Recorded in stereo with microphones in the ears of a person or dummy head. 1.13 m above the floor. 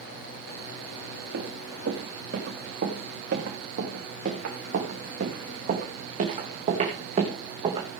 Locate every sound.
1.3 s running footsteps: 65° right (ahead or behind), 5.5 m; by 7.9 s 30° right (ahead or behind), 3.5 m